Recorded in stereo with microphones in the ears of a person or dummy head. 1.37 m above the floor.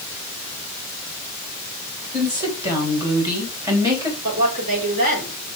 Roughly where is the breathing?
I don't hear breathing.